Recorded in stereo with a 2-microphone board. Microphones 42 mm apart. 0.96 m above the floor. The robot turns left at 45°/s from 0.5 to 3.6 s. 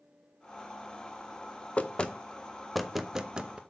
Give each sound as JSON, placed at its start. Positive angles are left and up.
{"t": 1.8, "sound": "knocking", "side_deg": 30, "distance_m": 0.5}